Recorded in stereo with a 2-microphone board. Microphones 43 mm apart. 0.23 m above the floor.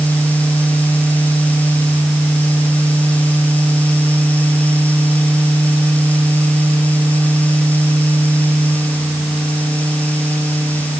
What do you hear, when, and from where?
Only background noise.